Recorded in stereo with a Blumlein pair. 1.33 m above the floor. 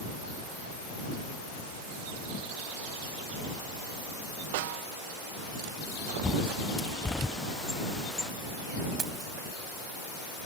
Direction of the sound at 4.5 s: 50° right.